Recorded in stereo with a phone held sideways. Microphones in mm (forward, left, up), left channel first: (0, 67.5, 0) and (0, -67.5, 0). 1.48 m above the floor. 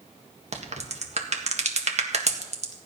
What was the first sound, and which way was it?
A crack, 55° right (ahead or behind).